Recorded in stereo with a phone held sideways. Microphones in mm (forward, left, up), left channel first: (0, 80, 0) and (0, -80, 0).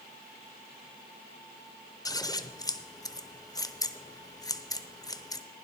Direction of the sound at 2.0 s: 20° left (ahead or behind).